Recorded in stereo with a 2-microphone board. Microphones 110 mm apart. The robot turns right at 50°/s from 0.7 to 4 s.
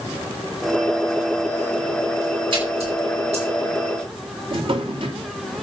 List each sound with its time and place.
2.5 s a splash: 50° right (ahead or behind), 8.5 m; by 3.5 s 80° right, 8.5 m
4.5 s a drawer: 55° right (ahead or behind), 2 m